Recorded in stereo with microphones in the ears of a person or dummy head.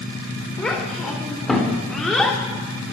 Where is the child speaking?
5° left (ahead or behind), 4 m.